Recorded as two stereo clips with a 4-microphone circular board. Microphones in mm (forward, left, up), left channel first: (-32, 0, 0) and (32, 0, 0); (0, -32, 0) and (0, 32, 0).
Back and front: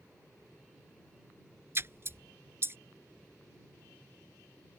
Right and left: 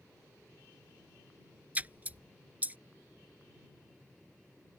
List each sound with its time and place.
1.8 s a splash: 35° left